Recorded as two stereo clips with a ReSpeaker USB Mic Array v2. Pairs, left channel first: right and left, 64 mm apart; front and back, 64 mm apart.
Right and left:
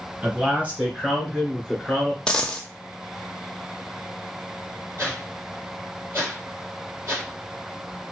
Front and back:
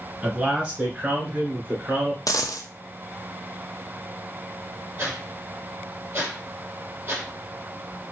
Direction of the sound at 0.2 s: 120° left.